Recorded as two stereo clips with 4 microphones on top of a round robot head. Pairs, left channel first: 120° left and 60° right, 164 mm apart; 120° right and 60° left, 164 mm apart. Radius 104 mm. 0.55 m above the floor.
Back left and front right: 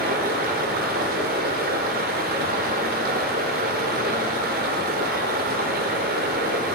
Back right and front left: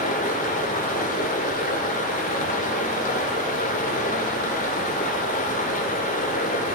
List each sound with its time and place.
0.0 s running water: 85° right, 1.2 m